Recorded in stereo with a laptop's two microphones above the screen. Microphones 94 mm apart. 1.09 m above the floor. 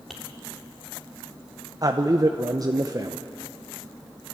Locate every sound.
0.1 s tapping: centre (ahead or behind), 3.5 m
1.8 s a man speaking: 40° right (ahead or behind), 0.7 m